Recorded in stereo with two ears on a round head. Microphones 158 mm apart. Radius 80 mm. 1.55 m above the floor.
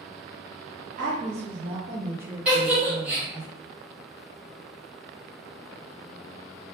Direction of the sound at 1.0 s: 50° right (ahead or behind).